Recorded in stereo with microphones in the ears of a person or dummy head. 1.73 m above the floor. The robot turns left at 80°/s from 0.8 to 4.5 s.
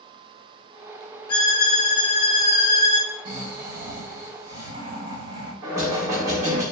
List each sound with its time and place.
1.3 s a violin: 155° left, 0.9 m; by 3.1 s 5° left, 0.9 m
3.2 s snoring: 35° right, 1.3 m; by 5.5 s 135° right, 1.3 m
5.6 s knocking: 15° right (ahead or behind), 1.5 m